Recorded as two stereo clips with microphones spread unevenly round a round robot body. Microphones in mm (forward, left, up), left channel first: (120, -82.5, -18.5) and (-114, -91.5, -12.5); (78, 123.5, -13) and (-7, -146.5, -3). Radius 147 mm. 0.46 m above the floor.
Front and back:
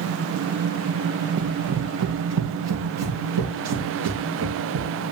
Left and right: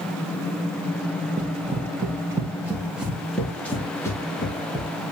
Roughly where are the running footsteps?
Behind.